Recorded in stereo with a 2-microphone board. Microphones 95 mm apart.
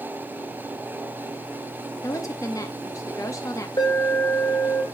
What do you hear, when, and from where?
2.0 s a woman speaking: 35° left (ahead or behind), 0.6 m
3.8 s an alarm: 50° left (ahead or behind), 2.5 m